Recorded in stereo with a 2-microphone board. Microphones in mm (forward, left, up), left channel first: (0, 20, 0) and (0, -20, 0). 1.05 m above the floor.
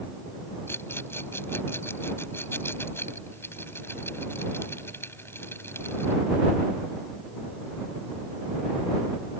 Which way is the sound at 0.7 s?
85° left.